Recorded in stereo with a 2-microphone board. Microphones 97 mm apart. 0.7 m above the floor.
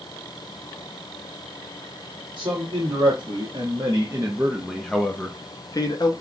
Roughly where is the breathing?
No breathing in this recording.